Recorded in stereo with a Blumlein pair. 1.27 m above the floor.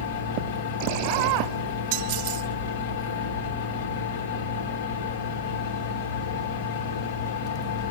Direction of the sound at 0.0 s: 55° left.